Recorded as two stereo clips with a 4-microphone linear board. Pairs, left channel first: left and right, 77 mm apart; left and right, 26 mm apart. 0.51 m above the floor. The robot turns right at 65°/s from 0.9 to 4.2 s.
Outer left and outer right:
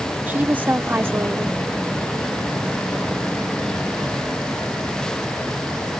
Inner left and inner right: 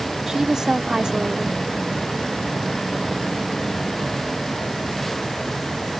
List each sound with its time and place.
0.3 s a woman speaking: 140° right; by 1.6 s 100° right